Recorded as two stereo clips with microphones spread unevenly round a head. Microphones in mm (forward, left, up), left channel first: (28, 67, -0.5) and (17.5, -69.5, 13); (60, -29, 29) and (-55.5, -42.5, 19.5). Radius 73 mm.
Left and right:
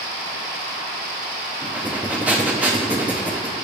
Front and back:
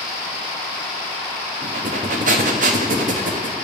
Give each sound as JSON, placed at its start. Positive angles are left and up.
{"t": 1.6, "sound": "breathing", "azimuth_deg": -170, "distance_m": 0.7}